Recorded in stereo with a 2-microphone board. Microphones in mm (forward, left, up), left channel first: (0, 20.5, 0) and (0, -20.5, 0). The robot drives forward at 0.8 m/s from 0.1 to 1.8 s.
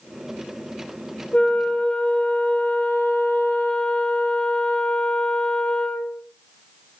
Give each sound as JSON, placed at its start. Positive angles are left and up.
{"t": 1.3, "sound": "a flute", "side_deg": 45, "distance_m": 1.1}